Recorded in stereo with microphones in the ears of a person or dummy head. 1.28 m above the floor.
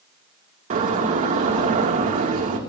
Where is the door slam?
40° right (ahead or behind), 1.6 m.